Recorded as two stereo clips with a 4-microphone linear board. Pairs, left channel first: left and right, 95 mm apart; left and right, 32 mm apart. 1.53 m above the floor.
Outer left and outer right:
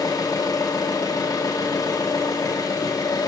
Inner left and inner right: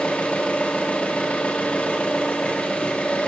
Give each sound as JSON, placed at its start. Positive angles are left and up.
{"t": 0.0, "sound": "an engine running", "side_deg": 40, "distance_m": 1.3}